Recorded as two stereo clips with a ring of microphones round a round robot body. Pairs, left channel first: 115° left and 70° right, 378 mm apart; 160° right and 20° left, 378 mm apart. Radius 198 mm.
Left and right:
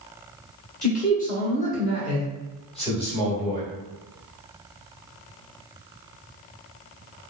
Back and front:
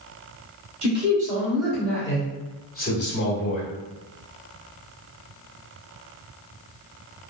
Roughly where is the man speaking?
Left.